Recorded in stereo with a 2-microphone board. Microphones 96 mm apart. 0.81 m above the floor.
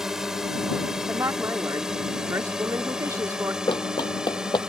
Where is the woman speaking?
30° right (ahead or behind).